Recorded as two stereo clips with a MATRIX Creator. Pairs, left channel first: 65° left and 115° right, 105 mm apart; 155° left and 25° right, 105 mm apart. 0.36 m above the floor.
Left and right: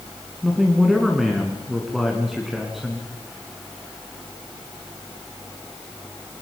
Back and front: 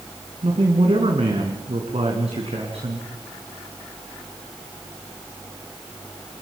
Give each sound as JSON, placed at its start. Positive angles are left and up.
{"t": 0.4, "sound": "a man speaking", "azimuth_deg": -25, "distance_m": 3.5}